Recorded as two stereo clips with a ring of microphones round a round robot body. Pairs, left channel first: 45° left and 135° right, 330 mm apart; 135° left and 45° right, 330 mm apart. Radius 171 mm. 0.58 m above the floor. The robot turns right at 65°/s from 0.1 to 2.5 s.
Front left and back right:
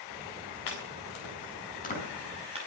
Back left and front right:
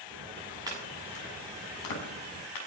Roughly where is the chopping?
Ahead left.